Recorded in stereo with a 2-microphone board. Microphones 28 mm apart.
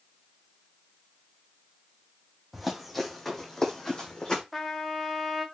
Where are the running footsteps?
10° right (ahead or behind), 1.6 m; by 4.4 s 30° left (ahead or behind), 1.9 m.